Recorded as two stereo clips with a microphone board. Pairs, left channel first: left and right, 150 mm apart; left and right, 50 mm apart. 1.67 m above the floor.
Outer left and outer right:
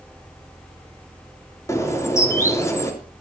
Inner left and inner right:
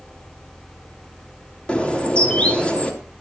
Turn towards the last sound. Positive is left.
turn(degrees=20)  # may be behind; listen again after turning